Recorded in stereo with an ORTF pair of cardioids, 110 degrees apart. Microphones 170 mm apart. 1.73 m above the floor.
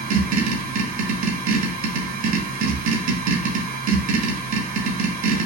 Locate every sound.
0.0 s a machine running: 65° right, 1.1 m